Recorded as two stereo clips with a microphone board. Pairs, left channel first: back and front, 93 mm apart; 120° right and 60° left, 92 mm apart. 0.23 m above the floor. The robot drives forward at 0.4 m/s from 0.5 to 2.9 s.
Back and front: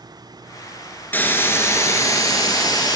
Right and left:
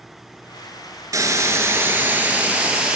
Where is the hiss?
110° left, 1.0 m; by 3.0 s 140° left, 1.4 m.